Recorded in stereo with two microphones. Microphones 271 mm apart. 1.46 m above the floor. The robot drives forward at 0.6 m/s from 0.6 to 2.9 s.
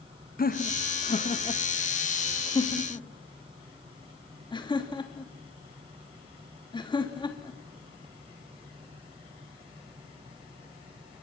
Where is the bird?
I don't hear a bird.